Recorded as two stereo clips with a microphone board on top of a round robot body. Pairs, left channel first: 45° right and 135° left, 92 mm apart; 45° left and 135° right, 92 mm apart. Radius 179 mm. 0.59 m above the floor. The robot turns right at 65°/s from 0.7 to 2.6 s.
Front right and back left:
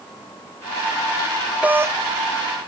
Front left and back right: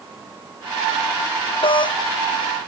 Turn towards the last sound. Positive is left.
turn(degrees=125)